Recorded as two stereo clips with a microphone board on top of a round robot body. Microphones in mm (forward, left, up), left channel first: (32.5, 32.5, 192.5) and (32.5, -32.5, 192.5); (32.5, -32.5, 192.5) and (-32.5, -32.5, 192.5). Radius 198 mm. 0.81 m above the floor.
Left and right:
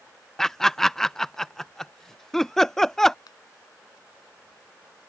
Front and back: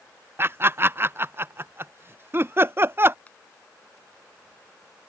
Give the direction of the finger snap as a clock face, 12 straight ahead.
10 o'clock.